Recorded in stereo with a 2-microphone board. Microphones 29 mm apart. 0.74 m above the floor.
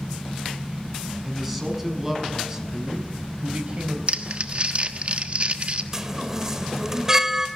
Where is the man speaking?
5° right (ahead or behind), 6 m; by 4.0 s 45° right (ahead or behind), 3.5 m.